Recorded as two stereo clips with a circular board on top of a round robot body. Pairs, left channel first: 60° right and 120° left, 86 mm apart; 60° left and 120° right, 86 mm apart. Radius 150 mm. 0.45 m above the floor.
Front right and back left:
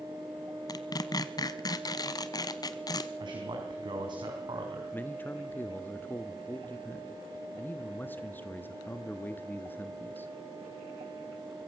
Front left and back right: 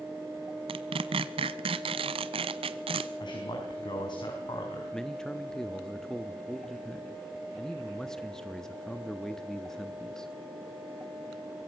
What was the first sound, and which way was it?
Tearing paper, 105° right.